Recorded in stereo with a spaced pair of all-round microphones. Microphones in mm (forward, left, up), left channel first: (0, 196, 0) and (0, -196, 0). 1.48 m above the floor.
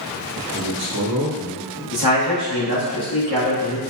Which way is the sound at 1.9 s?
75° left (ahead or behind).